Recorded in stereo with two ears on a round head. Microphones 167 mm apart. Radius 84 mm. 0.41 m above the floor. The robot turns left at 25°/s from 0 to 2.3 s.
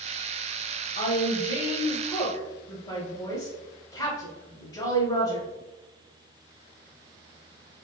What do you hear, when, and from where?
0.9 s a woman speaking: 35° left (ahead or behind), 1.0 m; by 5.5 s 25° left (ahead or behind), 1.0 m